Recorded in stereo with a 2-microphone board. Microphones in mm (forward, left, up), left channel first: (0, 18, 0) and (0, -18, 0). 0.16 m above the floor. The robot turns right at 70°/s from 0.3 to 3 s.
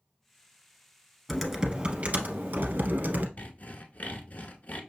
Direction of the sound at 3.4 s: 45° left (ahead or behind).